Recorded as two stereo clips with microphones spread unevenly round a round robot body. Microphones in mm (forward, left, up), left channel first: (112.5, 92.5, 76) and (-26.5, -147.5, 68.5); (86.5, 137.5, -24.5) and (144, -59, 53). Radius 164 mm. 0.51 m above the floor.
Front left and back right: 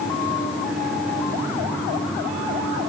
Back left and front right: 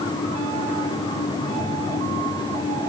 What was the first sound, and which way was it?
Only background noise.